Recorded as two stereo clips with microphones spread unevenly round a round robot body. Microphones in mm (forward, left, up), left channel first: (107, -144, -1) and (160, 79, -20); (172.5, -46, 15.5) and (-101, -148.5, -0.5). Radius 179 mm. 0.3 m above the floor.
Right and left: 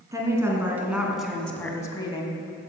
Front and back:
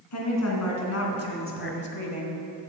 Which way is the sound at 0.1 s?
Straight ahead.